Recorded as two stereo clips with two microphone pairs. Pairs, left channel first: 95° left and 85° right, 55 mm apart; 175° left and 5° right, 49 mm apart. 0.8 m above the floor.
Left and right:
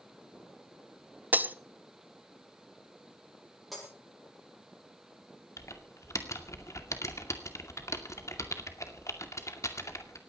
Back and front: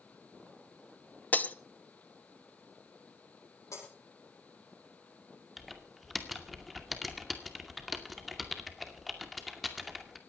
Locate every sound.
1.3 s breaking glass: 135° right, 0.8 m
3.7 s breaking glass: 170° right, 9 m
5.6 s typing on a keyboard: 85° left, 2 m